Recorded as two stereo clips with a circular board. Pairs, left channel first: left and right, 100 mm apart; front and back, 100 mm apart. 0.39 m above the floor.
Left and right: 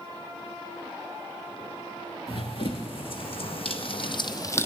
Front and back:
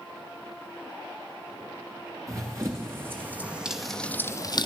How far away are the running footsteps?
About 1.9 m.